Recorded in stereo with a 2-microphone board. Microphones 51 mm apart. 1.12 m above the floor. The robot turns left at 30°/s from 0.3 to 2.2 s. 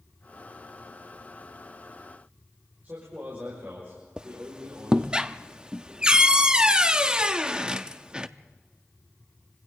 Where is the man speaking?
40° right (ahead or behind), 5.5 m.